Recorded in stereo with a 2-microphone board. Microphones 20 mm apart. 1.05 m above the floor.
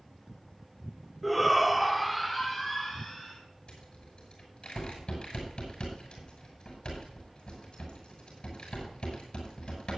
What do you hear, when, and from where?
1.2 s a shout: 5° right (ahead or behind), 0.8 m
3.7 s a rattle: 45° left (ahead or behind), 6.5 m